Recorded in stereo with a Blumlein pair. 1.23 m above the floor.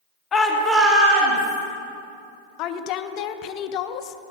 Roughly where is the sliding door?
No sliding door in this recording.